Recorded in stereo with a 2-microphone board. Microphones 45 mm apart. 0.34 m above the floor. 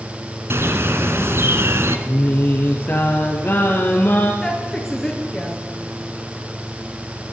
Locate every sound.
0.5 s a bird: 60° right (ahead or behind), 1.8 m
2.1 s singing: 40° left (ahead or behind), 3.5 m
4.4 s a woman speaking: 5° left (ahead or behind), 5 m